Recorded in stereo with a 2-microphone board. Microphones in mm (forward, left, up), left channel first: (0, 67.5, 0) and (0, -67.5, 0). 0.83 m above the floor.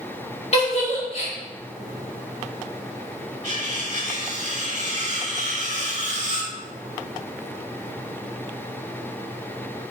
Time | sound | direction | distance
0.5 | a giggle | 50° left (ahead or behind) | 1.1 m
3.4 | cutlery clinking | 55° right (ahead or behind) | 1.2 m